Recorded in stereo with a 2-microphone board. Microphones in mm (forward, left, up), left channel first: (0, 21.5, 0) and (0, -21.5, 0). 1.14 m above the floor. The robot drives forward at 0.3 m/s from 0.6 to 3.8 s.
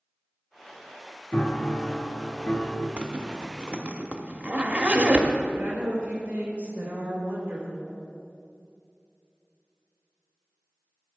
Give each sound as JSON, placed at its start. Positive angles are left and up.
{"t": 1.3, "sound": "a piano", "side_deg": 30, "distance_m": 0.8}
{"t": 3.0, "sound": "a zipper", "side_deg": -35, "distance_m": 0.7}
{"t": 5.5, "sound": "a woman speaking", "side_deg": -30, "distance_m": 3.0}